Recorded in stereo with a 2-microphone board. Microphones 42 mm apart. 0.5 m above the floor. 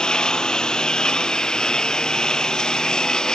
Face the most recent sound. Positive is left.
turn(degrees=15)  # may be behind; listen again after turning